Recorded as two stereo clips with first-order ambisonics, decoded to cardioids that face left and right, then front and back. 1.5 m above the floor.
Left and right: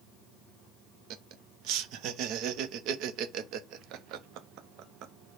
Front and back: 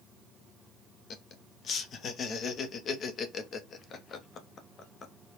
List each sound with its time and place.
1.1 s laughter: 55° right, 0.7 m